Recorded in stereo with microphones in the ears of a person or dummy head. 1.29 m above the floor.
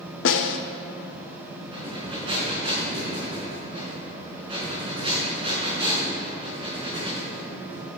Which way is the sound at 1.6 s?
40° right (ahead or behind).